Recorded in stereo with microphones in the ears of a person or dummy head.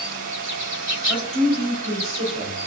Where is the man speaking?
40° right (ahead or behind), 2.5 m.